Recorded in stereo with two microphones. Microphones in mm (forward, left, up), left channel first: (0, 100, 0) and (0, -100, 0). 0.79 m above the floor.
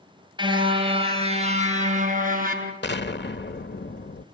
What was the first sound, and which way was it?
A car horn, 20° right (ahead or behind).